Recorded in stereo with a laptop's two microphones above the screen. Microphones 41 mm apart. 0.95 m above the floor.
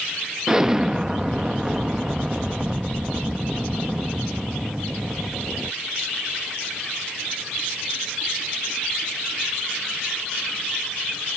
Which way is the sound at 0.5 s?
15° right (ahead or behind).